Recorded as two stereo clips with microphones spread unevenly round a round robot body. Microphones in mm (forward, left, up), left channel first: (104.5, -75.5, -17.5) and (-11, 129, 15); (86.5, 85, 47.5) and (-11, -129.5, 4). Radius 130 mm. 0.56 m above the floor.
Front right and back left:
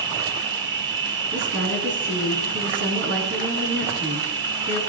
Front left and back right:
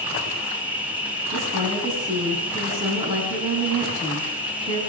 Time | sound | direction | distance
0.0 | an insect | 170° left | 1.7 m
1.3 | a woman speaking | 175° left | 6.5 m